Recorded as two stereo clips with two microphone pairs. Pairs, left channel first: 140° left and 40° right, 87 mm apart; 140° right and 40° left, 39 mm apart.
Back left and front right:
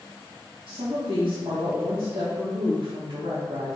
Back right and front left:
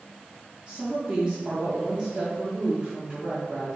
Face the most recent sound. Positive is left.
turn(degrees=-15)